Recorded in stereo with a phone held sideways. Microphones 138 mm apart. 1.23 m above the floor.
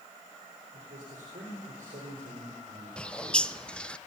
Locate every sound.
0.7 s a man speaking: 90° right, 4 m
3.0 s a bird: 5° left (ahead or behind), 0.5 m